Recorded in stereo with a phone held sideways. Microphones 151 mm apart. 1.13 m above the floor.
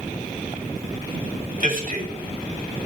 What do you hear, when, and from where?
1.6 s a man speaking: 65° right (ahead or behind), 6 m